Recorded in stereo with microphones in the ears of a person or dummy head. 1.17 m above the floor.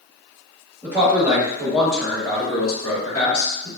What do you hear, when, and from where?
0.8 s a man speaking: 15° right (ahead or behind), 1.3 m; by 3.7 s 25° left (ahead or behind), 0.9 m